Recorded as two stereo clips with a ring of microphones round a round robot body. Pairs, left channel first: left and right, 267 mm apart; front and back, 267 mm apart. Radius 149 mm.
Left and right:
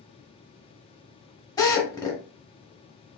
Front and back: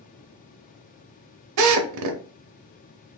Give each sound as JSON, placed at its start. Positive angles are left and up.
{"t": 1.6, "sound": "a drill", "azimuth_deg": 170, "distance_m": 0.7}